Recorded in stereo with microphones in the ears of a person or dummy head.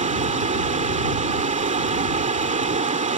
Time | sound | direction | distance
0.0 | running water | 30° right (ahead or behind) | ?